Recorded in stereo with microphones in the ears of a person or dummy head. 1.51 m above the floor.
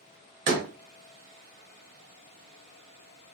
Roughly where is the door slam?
Right.